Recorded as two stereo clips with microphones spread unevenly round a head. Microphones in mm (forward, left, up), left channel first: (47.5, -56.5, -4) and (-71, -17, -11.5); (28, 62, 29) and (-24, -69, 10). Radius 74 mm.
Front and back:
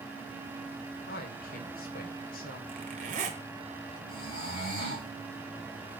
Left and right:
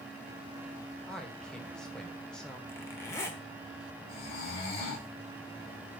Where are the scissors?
No scissors in this recording.